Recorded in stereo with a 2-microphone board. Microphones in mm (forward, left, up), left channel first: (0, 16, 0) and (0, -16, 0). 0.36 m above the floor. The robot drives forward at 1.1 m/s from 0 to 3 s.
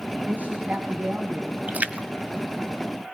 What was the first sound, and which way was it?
A woman speaking, 60° right (ahead or behind).